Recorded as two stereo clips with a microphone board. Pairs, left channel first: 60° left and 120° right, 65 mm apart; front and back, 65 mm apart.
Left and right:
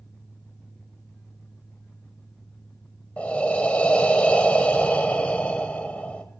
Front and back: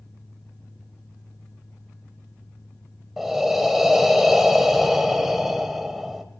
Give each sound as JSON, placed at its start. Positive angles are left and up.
{"t": 3.2, "sound": "breathing", "azimuth_deg": 100, "distance_m": 1.0}